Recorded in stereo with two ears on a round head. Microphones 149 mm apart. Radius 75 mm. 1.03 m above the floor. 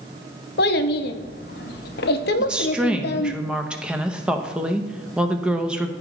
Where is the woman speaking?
5° right (ahead or behind), 0.8 m.